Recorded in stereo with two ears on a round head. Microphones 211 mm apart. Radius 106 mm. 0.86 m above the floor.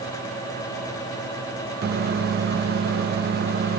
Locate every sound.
1.8 s a microwave: 45° right (ahead or behind), 0.8 m